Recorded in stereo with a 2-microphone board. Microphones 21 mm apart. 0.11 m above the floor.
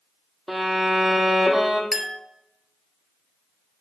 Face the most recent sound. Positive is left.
turn(degrees=-15)  # may be behind; listen again after turning